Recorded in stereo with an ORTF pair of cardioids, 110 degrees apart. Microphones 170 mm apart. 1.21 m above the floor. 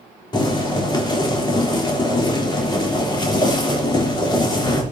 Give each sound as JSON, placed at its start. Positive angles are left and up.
{"t": 0.3, "sound": "boiling", "azimuth_deg": 25, "distance_m": 3.5}